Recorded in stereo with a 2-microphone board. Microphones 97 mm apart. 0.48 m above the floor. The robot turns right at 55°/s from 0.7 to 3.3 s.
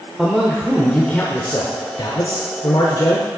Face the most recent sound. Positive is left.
turn(degrees=140)